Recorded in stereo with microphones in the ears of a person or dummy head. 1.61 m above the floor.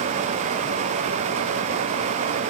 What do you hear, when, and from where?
Only background noise.